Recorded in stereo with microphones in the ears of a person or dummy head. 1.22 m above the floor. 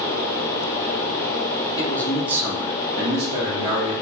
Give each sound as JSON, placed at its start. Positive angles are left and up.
{"t": 1.8, "sound": "a man speaking", "side_deg": 15, "distance_m": 0.6}